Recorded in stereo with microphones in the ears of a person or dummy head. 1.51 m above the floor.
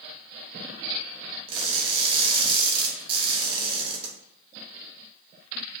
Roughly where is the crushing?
Right.